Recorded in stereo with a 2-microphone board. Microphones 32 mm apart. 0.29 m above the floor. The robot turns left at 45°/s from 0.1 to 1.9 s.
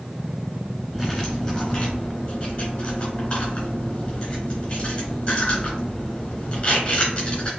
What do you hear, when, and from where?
0.9 s cutlery clinking: centre (ahead or behind), 2 m; by 7.5 s 45° left (ahead or behind), 2 m